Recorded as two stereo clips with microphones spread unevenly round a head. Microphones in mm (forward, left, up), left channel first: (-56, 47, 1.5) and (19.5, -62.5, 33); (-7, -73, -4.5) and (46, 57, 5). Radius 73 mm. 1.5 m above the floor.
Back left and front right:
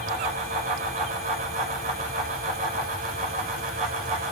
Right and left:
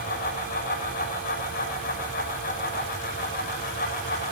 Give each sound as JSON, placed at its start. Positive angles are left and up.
{"t": 0.0, "sound": "a fan", "azimuth_deg": -85, "distance_m": 7.0}